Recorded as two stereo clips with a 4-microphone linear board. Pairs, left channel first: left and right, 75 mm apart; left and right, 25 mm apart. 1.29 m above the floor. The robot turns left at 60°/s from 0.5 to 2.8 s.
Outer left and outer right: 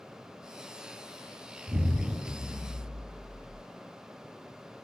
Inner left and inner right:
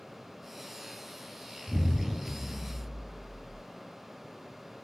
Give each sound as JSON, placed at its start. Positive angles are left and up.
{"t": 1.7, "sound": "an explosion", "azimuth_deg": -120, "distance_m": 2.0}